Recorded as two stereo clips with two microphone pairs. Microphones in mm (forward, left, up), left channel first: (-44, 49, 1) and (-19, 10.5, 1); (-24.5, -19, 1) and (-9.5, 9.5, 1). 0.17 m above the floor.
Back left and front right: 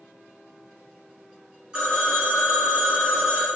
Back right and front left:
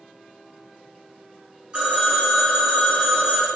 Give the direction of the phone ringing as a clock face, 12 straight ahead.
11 o'clock.